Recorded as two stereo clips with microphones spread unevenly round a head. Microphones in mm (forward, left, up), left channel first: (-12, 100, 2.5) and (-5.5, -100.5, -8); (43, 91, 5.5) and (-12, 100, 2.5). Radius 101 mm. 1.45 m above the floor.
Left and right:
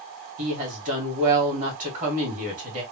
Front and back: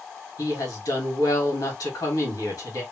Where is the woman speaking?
35° right, 2 m.